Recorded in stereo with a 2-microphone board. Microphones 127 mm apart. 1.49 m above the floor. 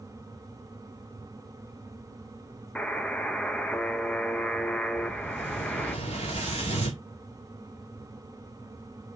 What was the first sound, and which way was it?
A buzzer, 10° left (ahead or behind).